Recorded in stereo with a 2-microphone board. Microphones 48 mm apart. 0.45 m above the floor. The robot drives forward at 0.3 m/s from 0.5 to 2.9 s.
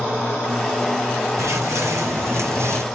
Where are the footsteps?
75° right (ahead or behind), 1.7 m; by 2.8 s 65° right (ahead or behind), 0.9 m.